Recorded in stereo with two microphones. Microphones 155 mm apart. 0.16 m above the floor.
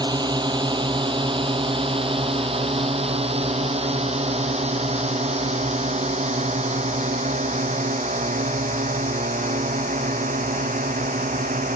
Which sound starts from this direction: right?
A drone, at 0.0 s.